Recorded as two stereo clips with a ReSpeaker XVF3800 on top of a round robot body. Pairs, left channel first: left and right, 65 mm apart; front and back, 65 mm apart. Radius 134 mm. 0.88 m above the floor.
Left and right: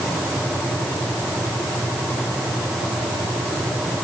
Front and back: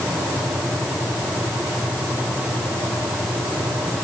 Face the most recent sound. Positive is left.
No sound to turn to.